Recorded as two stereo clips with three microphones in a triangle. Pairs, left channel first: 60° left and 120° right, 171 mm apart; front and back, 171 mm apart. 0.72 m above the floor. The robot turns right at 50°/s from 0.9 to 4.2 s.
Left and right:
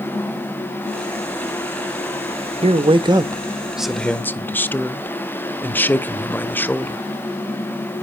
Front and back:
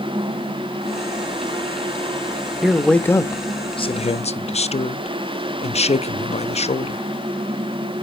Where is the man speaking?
95° right, 0.5 m; by 7.0 s 15° right, 0.5 m.